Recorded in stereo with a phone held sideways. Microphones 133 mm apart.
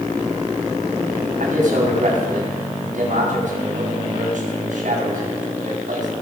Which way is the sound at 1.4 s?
65° right (ahead or behind).